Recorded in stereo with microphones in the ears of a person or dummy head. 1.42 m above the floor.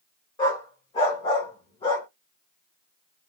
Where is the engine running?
No engine running in this recording.